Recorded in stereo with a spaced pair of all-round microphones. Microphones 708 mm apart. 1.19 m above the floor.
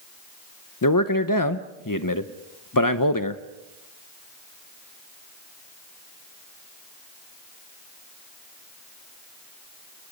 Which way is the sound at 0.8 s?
30° left (ahead or behind).